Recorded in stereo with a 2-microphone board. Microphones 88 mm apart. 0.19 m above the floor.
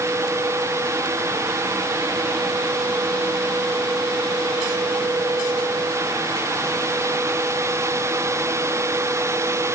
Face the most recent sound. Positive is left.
No sound to turn to.